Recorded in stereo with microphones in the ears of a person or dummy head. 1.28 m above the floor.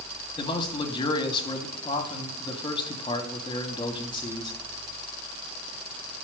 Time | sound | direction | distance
0.4 | a man speaking | 20° left (ahead or behind) | 2.5 m